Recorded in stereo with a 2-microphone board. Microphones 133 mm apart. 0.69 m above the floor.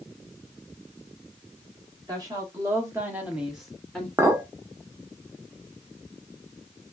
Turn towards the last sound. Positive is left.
turn(degrees=-20)  # may be behind; listen again after turning